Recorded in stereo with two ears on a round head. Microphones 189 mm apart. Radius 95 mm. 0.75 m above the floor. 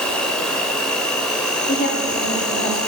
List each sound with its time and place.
0.0 s an insect: 5° left (ahead or behind), 0.9 m
1.7 s a woman speaking: 50° left (ahead or behind), 1.4 m